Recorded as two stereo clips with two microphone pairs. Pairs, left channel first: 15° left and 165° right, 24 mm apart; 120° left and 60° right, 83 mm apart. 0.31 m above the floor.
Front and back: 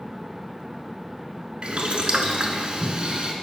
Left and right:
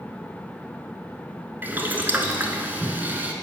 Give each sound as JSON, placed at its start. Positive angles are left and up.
{"t": 1.6, "sound": "boiling", "azimuth_deg": -125, "distance_m": 0.8}